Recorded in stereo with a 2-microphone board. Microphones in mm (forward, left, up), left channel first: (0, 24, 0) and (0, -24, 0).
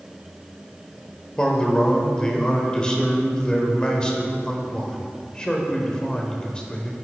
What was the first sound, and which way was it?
A man speaking, 20° left (ahead or behind).